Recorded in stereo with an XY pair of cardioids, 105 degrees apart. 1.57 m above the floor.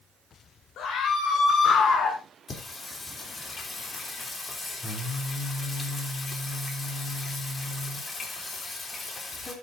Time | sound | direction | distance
0.8 | a scream | 70° left | 2.5 m
2.5 | singing | 35° left | 3 m